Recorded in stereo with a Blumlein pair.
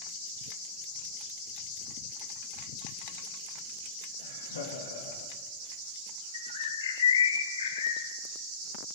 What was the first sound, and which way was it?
Laughter, 70° left.